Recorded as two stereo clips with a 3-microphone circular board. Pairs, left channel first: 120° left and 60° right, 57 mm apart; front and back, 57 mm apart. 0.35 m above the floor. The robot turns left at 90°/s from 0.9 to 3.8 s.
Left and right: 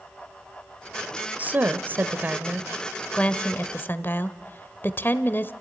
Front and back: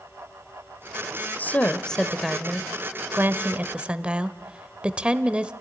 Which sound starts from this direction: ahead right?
A woman speaking, at 1.4 s.